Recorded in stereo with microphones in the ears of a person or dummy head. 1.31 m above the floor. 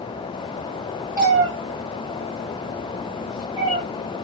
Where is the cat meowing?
20° right (ahead or behind), 1.5 m; by 3.8 s 25° left (ahead or behind), 1.2 m.